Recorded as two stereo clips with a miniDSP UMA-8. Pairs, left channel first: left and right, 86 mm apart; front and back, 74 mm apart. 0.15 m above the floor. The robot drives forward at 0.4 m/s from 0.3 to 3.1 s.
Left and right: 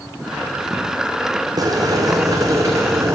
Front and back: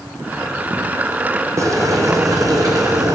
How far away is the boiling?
About 1.4 m.